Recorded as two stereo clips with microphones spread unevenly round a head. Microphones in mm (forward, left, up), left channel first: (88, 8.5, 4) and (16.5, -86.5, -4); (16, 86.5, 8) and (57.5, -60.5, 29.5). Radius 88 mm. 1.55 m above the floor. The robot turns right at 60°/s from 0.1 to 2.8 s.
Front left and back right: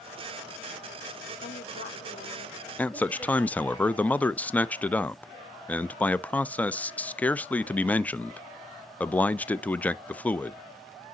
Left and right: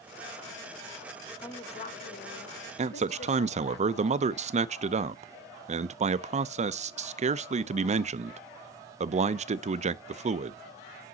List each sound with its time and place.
1.4 s a woman speaking: 40° left, 1.3 m; by 3.8 s 125° left, 1.3 m
2.8 s a man speaking: 25° right, 0.5 m